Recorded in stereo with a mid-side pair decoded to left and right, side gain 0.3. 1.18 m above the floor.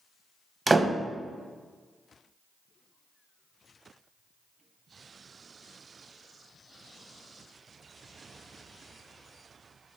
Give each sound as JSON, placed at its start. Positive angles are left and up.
{"t": 0.7, "sound": "a door slam", "azimuth_deg": -30, "distance_m": 0.7}